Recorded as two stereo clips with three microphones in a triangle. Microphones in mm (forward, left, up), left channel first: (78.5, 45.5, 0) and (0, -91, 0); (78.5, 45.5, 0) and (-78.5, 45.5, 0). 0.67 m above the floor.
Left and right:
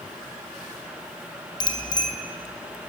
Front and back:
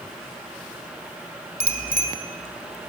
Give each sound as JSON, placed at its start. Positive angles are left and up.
{"t": 1.6, "sound": "a bicycle bell", "azimuth_deg": 0, "distance_m": 2.5}